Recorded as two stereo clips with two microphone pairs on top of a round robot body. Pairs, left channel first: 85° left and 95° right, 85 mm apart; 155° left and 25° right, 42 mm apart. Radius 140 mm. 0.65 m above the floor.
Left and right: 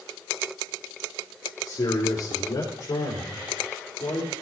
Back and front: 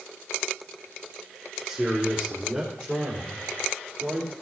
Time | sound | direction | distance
1.6 | a man speaking | 35° left | 2.5 m